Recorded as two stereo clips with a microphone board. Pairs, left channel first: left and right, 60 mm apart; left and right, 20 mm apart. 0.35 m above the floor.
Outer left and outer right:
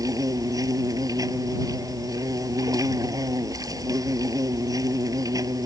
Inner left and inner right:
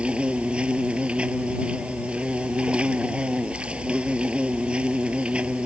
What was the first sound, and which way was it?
An insect, 85° right.